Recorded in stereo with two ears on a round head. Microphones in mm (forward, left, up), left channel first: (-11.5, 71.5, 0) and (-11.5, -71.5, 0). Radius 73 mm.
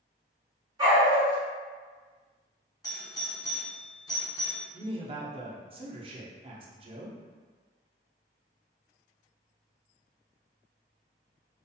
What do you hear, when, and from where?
0.8 s a dog barking: 25° right (ahead or behind), 0.9 m
2.8 s a doorbell: 25° left (ahead or behind), 0.7 m
4.7 s a man speaking: 35° right (ahead or behind), 0.6 m